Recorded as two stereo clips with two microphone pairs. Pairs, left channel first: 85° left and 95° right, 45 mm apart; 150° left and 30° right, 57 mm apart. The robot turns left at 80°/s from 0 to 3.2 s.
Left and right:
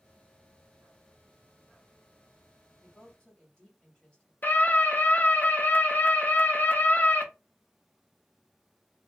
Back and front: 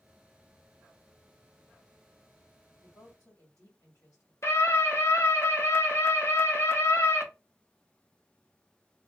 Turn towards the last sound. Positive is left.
turn(degrees=125)